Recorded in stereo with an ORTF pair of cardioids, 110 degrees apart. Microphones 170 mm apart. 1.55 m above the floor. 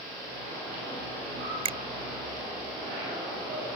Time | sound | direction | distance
1.6 | a finger snap | 35° right | ?